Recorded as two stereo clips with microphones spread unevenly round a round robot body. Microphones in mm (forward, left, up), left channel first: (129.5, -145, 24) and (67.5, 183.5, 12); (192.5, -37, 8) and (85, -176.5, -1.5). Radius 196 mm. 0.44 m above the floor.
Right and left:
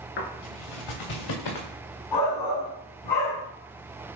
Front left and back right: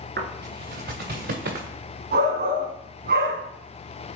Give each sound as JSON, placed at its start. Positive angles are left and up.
{"t": 0.2, "sound": "footsteps", "azimuth_deg": -110, "distance_m": 3.5}
{"t": 2.1, "sound": "a shout", "azimuth_deg": -115, "distance_m": 3.5}